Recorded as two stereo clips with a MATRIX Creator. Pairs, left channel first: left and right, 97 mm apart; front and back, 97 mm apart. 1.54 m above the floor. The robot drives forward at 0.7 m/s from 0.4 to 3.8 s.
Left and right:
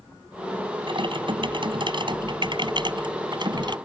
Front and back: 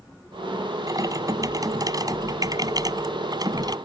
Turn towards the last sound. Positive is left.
turn(degrees=-130)